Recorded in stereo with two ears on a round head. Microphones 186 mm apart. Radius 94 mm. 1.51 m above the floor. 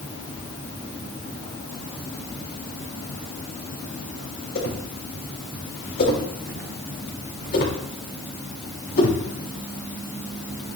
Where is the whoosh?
55° left (ahead or behind), 6 m.